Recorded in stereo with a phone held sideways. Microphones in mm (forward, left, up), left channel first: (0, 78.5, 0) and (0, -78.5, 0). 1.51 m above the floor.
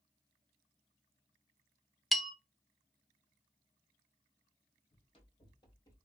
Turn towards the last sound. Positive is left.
turn(degrees=20)  # may be behind; listen again after turning